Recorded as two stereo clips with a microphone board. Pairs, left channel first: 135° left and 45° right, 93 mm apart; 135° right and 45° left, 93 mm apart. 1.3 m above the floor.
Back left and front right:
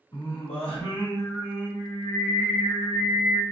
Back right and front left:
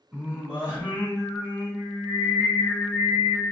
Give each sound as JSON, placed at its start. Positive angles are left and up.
{"t": 0.1, "sound": "singing", "azimuth_deg": 120, "distance_m": 1.2}